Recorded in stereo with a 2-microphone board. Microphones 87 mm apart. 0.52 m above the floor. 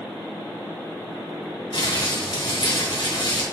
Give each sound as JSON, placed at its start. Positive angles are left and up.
{"t": 1.7, "sound": "crumpling", "side_deg": 65, "distance_m": 2.5}